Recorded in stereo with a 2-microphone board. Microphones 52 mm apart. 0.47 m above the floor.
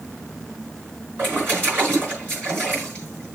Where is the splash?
40° right (ahead or behind), 5.5 m.